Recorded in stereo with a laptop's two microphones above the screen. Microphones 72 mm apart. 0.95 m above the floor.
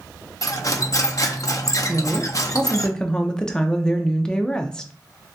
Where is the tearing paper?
I don't hear tearing paper.